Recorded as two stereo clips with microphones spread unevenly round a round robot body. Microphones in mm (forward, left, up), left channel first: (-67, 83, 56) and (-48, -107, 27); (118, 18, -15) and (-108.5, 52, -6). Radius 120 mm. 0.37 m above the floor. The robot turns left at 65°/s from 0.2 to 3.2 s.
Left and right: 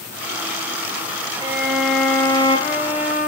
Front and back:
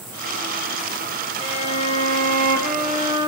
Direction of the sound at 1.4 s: 120° right.